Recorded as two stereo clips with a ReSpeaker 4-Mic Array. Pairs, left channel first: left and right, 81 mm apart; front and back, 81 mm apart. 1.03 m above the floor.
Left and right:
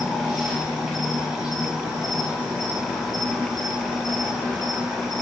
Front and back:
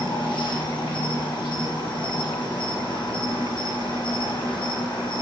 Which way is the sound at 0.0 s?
5° right.